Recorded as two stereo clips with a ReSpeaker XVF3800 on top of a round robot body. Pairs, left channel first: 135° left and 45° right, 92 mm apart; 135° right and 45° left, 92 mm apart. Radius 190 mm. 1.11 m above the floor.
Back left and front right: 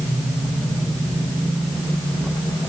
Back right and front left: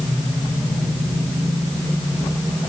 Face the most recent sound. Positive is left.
No sound to turn to.